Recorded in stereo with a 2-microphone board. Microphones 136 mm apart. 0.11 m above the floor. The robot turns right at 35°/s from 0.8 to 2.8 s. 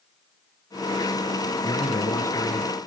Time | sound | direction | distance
1.6 | a man speaking | 25° left (ahead or behind) | 1.1 m